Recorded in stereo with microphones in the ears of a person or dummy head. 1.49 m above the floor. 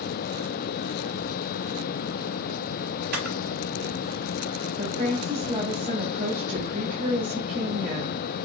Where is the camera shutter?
55° right (ahead or behind), 5 m.